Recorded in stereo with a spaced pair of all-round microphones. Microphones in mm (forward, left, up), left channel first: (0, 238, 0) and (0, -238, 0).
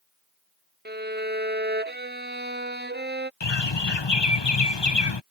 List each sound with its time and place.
0.8 s a violin: 20° right (ahead or behind)
3.4 s a bird: 60° left (ahead or behind)